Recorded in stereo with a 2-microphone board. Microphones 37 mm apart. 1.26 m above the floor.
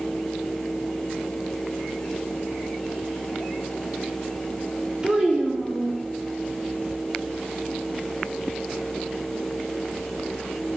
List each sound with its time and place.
5.0 s a child speaking: 25° right (ahead or behind), 1.3 m